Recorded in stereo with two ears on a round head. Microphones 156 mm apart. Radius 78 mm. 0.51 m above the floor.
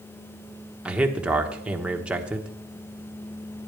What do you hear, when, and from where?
0.8 s a man speaking: 5° right (ahead or behind), 1.2 m